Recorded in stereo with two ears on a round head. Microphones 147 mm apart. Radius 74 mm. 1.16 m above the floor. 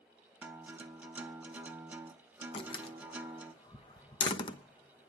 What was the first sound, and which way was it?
A guitar, 10° right (ahead or behind).